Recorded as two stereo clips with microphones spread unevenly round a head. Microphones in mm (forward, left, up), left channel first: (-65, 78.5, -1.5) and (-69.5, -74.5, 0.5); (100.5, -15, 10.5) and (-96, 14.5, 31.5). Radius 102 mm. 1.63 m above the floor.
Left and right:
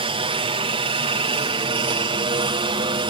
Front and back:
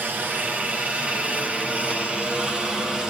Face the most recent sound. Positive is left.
turn(degrees=-95)